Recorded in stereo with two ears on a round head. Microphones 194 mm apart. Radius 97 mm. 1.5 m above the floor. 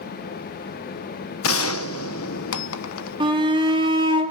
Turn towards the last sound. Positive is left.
turn(degrees=-25)  # may be behind; listen again after turning